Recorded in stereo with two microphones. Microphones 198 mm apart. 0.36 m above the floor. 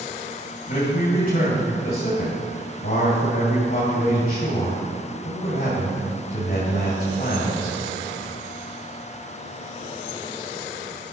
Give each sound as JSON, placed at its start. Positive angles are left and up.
{"t": 0.7, "sound": "a man speaking", "side_deg": 50, "distance_m": 2.5}